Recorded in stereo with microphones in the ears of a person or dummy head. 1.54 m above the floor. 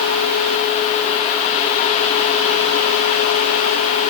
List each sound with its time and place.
Only background noise.